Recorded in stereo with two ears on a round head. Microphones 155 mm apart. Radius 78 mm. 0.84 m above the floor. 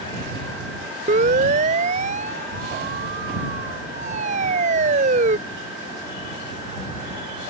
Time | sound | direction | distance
1.1 | a siren | 45° right (ahead or behind) | ?